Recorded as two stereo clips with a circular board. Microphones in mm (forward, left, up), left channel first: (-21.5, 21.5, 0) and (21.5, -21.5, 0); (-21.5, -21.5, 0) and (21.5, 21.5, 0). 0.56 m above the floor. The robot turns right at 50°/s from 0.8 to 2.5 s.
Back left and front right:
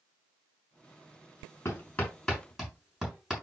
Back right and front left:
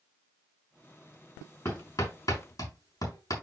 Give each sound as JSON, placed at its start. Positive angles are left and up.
{"t": 1.6, "sound": "hammering", "azimuth_deg": -175, "distance_m": 6.5}